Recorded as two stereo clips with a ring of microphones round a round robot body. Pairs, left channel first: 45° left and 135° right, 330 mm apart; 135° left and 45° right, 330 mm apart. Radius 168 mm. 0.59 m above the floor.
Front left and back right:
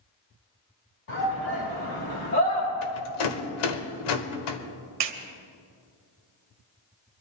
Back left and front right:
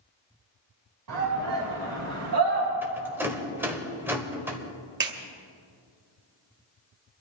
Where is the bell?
I don't hear a bell.